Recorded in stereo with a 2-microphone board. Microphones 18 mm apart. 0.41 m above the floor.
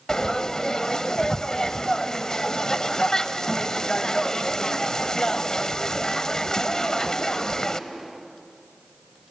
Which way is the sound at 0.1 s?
30° left (ahead or behind).